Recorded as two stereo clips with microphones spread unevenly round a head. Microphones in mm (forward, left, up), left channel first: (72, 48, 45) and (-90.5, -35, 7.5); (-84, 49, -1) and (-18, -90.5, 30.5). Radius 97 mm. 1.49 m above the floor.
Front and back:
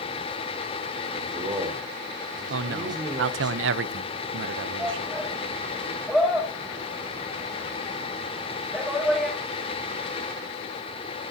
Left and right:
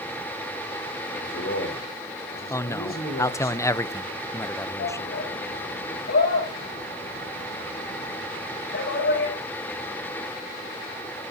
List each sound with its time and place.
1.1 s a man speaking: 140° left, 5 m
2.5 s a man speaking: 170° right, 0.8 m
4.8 s a shout: 115° left, 6.5 m